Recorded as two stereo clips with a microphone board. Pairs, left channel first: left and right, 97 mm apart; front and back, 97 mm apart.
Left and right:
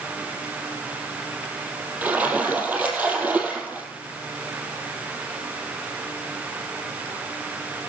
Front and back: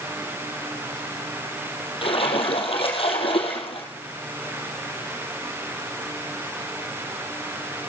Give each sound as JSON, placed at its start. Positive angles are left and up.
{"t": 2.0, "sound": "a splash", "azimuth_deg": -15, "distance_m": 3.0}